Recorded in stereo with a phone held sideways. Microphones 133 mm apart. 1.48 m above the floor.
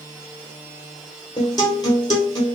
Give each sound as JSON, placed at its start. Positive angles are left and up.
{"t": 1.4, "sound": "a guitar", "side_deg": 30, "distance_m": 1.4}